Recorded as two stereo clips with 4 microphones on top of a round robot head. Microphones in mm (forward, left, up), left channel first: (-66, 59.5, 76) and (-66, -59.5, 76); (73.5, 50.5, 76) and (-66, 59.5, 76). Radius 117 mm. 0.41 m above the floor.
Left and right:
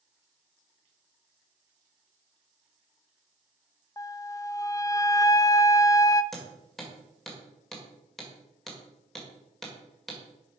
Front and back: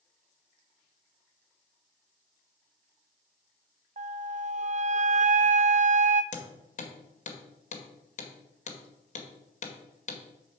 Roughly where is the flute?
Behind left.